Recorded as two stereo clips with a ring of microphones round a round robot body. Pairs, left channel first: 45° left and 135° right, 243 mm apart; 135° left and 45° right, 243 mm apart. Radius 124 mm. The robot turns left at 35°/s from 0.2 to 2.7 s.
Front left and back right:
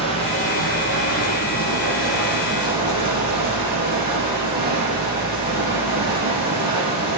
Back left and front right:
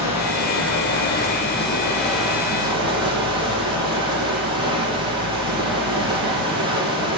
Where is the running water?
115° left, 5 m; by 7.2 s 25° left, 5 m.